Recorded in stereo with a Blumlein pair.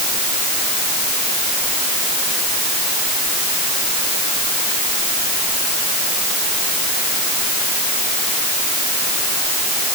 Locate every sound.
Only background noise.